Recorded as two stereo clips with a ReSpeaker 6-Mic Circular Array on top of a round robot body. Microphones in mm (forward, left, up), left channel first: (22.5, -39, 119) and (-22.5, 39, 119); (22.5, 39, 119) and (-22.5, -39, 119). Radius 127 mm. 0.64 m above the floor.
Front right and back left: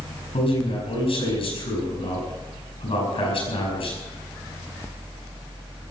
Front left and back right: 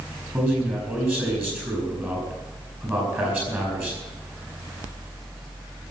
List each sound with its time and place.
0.3 s a man speaking: 50° right, 9 m